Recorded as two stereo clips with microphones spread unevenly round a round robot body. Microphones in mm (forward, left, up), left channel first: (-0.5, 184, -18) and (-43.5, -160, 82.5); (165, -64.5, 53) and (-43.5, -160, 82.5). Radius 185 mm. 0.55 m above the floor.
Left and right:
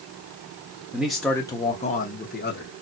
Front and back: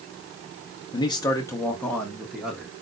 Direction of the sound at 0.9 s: 15° left.